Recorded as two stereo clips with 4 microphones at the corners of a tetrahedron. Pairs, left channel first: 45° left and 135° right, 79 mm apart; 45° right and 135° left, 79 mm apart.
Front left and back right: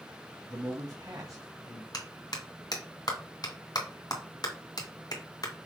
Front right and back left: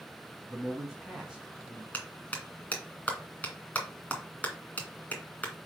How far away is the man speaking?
About 2 m.